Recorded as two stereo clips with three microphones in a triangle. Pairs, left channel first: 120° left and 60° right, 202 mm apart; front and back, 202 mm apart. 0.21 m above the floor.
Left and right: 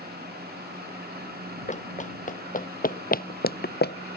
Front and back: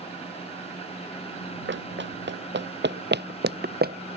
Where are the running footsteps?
170° left; by 4.2 s 145° left.